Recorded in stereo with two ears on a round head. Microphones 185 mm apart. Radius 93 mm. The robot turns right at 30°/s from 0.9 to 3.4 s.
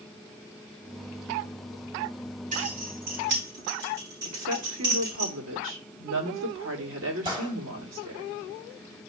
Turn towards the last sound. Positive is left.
turn(degrees=-25)  # may be behind; listen again after turning